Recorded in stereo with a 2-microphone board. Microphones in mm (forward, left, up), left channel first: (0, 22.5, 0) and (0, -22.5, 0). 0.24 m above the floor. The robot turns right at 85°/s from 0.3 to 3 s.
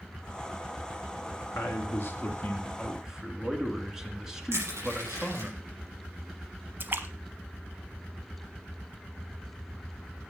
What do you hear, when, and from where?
1.5 s a man speaking: 65° left, 2.5 m; by 5.5 s 170° right, 2.5 m
4.5 s crushing: 80° right, 6 m
6.8 s a splash: 50° right (ahead or behind), 1.2 m